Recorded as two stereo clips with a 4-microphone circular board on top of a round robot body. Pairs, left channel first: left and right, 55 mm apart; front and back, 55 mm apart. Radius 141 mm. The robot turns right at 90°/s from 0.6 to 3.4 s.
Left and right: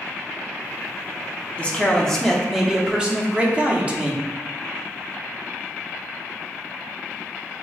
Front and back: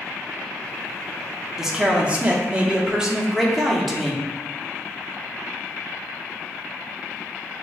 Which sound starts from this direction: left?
A man speaking, at 1.6 s.